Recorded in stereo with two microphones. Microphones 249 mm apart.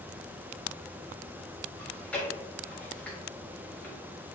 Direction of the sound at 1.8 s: 5° left (ahead or behind).